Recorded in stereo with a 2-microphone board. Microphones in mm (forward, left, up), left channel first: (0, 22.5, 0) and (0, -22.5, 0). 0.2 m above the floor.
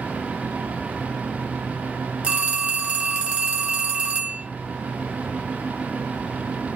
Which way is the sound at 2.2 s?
25° right (ahead or behind).